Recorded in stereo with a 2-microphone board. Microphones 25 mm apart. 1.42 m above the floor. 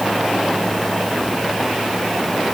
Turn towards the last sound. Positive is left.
No sound to turn to.